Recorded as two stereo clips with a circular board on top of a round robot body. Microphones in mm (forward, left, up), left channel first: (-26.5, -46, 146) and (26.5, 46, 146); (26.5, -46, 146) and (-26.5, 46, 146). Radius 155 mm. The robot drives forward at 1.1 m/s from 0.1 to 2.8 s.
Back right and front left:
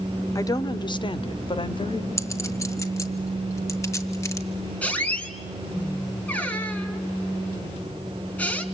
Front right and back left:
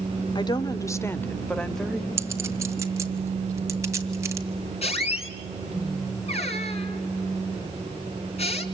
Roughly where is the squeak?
Ahead right.